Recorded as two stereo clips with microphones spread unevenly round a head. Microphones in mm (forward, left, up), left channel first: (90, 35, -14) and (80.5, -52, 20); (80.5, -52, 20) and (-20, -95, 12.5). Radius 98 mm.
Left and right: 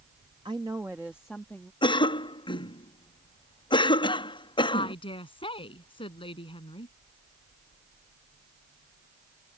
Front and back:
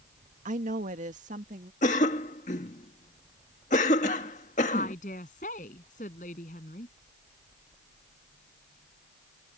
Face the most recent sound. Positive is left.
turn(degrees=60)